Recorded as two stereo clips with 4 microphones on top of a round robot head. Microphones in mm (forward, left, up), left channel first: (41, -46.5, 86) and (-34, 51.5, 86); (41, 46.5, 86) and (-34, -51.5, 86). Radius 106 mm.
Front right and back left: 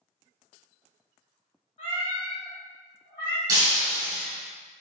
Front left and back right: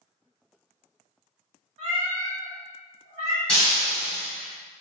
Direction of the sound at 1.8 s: 95° right.